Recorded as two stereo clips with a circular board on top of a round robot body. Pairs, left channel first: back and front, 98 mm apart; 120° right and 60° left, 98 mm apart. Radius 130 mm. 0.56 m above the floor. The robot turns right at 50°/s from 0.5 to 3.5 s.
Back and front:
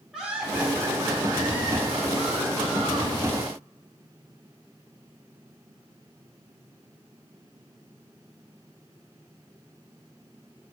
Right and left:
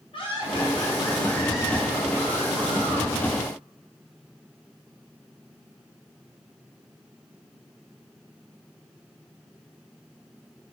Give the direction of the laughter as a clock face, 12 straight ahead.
3 o'clock.